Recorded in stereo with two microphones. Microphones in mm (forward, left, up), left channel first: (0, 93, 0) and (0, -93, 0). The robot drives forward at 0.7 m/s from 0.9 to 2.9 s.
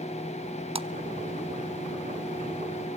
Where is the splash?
30° right (ahead or behind), 0.7 m.